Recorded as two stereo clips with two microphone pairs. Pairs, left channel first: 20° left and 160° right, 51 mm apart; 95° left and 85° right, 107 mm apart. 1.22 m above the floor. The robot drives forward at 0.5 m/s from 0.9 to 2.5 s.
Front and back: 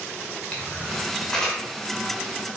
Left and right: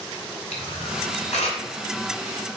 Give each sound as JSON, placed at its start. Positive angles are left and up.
{"t": 0.5, "sound": "a camera shutter", "azimuth_deg": 90, "distance_m": 2.0}